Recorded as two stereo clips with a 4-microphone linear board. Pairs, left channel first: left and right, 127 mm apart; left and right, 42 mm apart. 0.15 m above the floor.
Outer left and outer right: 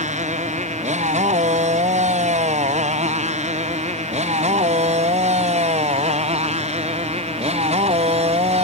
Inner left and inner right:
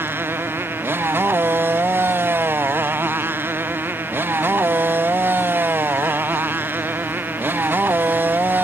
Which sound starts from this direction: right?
A motorcycle, at 0.0 s.